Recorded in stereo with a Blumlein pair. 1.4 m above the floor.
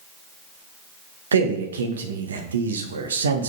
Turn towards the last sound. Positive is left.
turn(degrees=-65)